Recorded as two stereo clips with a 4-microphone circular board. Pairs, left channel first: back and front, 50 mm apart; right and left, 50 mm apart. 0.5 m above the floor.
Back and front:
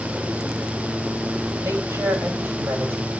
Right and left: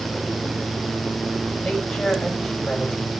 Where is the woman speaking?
10° right, 3 m.